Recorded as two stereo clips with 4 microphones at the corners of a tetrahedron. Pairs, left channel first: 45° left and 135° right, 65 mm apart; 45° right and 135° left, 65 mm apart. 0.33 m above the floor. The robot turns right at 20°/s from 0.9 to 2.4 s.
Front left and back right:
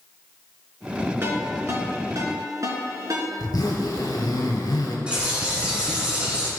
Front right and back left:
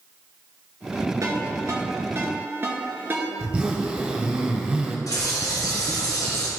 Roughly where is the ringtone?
Behind.